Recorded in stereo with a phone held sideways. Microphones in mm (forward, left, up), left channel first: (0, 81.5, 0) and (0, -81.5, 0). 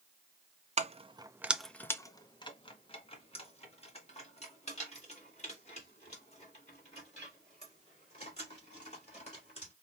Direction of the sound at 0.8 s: 45° right (ahead or behind).